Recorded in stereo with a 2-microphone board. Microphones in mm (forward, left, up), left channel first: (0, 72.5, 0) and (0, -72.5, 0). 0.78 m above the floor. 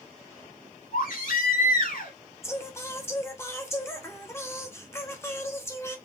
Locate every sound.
0.9 s a baby crying: 75° left (ahead or behind), 2.5 m
2.4 s singing: 20° left (ahead or behind), 1.1 m